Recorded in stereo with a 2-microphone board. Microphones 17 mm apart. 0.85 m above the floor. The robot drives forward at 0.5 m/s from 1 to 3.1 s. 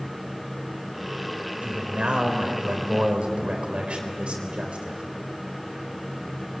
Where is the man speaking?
80° right, 4 m; by 5.0 s 70° right (ahead or behind), 4 m.